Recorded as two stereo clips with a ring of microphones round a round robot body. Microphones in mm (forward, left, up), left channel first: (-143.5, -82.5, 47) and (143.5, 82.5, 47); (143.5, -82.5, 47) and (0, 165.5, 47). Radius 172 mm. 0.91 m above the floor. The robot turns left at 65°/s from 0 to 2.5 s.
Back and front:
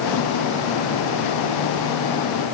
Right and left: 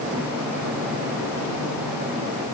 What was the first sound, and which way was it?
Only background noise.